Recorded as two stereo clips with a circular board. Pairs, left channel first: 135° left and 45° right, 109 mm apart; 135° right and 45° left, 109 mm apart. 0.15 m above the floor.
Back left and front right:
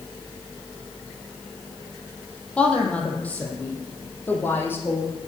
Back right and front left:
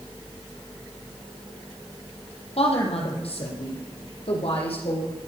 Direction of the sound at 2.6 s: 145° right.